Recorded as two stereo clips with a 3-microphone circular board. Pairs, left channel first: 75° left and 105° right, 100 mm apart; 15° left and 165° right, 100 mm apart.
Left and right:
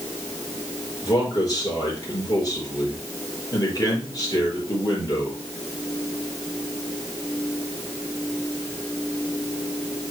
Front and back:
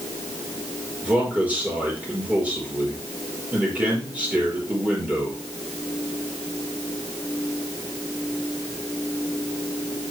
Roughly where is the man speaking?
Behind left.